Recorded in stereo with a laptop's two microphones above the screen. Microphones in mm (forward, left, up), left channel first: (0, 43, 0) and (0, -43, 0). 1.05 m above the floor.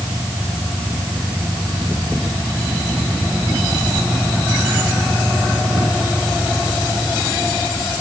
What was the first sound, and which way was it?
Only background noise.